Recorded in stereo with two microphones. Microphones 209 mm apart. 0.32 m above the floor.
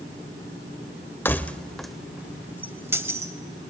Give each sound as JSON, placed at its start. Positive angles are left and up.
{"t": 1.2, "sound": "keys jangling", "side_deg": 10, "distance_m": 0.6}